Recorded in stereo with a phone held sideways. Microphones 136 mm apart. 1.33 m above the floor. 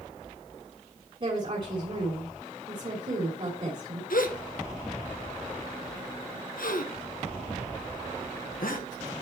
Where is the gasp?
80° left, 1.0 m.